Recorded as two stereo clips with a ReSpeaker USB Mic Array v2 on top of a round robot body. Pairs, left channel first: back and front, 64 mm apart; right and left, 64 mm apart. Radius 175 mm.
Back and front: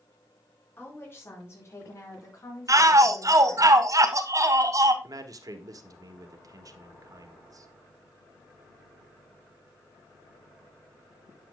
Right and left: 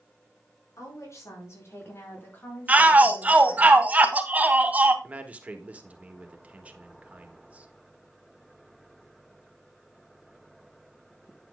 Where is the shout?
25° left, 2 m.